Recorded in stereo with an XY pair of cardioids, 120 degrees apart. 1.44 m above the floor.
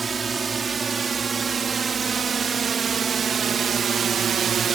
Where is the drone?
30° right; by 4.8 s 50° right.